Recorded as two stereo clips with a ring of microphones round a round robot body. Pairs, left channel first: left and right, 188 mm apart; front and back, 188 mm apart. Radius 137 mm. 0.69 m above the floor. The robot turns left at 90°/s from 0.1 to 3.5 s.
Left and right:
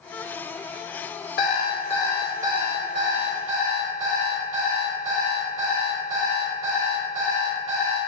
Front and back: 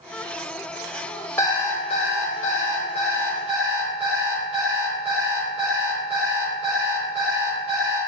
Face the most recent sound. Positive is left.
turn(degrees=-110)